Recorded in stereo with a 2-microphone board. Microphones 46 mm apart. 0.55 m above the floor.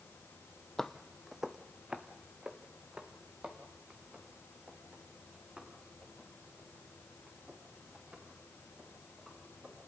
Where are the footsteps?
10° left (ahead or behind), 0.8 m; by 9.9 s 30° right (ahead or behind), 10 m.